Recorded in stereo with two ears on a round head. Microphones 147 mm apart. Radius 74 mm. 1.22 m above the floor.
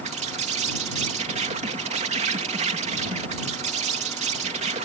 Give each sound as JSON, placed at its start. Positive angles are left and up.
{"t": 0.0, "sound": "an insect", "side_deg": -40}